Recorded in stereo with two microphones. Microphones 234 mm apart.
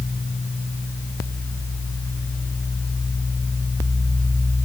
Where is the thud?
I don't hear a thud.